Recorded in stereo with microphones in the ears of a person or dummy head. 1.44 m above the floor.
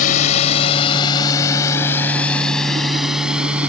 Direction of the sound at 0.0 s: 45° left (ahead or behind).